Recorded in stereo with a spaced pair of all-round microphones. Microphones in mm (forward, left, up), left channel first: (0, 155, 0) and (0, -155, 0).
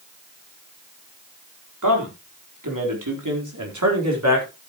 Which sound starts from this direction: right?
A man speaking, at 1.8 s.